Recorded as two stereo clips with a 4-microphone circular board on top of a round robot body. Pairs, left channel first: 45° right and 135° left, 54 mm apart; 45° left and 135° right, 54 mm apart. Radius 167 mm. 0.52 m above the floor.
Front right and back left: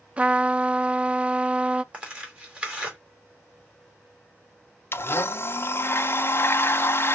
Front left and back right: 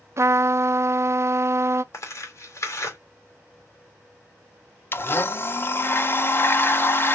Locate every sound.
0.2 s a trumpet: 160° right, 0.6 m
1.9 s tearing paper: 70° left, 2.5 m
4.9 s a blender: straight ahead, 0.8 m